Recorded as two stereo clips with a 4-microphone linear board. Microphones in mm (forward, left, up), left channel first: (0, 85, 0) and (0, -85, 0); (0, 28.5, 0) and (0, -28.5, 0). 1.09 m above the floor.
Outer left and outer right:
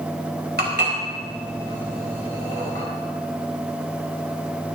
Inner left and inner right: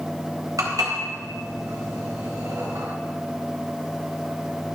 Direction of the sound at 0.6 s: 70° right (ahead or behind).